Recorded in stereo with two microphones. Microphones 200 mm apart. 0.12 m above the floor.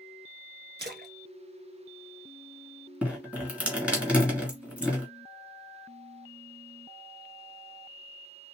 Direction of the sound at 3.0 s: 5° right (ahead or behind).